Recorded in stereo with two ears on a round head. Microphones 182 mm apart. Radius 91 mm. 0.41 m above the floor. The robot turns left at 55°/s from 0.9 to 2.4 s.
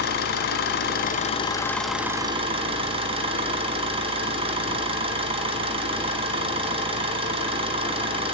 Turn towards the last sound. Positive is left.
turn(degrees=-30)